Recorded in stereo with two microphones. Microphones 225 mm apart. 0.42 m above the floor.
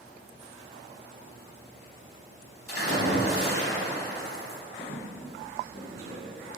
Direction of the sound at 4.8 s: 65° left (ahead or behind).